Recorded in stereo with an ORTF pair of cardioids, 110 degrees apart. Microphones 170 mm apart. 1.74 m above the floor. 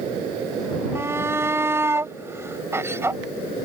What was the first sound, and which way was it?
A shout, 15° right.